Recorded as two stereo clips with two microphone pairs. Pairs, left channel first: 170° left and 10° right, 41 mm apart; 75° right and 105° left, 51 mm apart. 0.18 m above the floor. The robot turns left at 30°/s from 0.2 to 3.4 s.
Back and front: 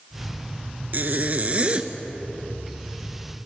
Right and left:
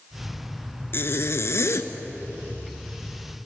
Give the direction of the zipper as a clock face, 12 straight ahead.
1 o'clock.